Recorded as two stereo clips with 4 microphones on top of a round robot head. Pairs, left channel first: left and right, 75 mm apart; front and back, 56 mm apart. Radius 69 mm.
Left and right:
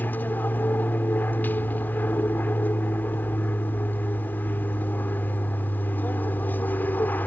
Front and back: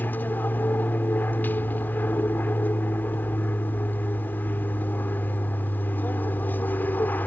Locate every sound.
0.0 s an aircraft: 40° left